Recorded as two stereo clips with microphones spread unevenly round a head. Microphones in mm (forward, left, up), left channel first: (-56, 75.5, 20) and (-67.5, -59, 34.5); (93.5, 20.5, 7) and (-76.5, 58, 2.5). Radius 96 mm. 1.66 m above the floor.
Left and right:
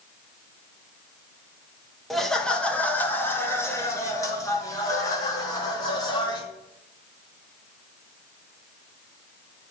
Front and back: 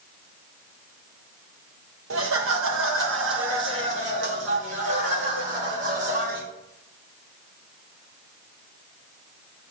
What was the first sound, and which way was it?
Laughter, 175° left.